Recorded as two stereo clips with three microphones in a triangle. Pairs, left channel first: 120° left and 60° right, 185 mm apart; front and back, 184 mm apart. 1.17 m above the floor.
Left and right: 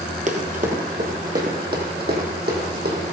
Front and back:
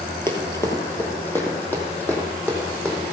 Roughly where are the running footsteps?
Right.